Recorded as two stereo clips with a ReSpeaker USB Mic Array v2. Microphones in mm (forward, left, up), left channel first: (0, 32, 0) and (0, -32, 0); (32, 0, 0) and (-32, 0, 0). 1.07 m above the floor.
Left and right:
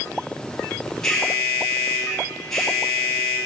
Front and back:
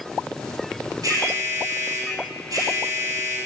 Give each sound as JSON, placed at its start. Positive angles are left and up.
{"t": 1.0, "sound": "an alarm", "azimuth_deg": 170, "distance_m": 4.0}